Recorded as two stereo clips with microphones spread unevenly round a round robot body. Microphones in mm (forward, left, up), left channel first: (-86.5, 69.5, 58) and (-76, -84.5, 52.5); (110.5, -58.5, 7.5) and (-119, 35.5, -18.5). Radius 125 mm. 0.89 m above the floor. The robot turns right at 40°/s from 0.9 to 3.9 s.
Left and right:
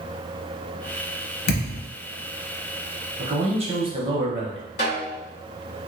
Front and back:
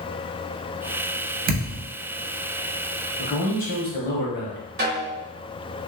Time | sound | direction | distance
1.5 | a thud | 95° left | 0.6 m
3.2 | a man speaking | 85° right | 1.1 m
4.8 | a snare drum | 105° left | 1.4 m